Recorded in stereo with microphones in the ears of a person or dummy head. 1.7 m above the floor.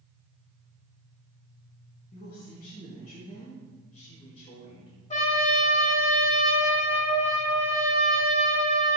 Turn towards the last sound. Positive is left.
turn(degrees=40)  # may be behind; listen again after turning